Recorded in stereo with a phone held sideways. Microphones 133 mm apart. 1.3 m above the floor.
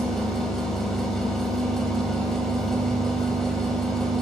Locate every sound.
0.0 s a machine running: 5° left (ahead or behind), 1.1 m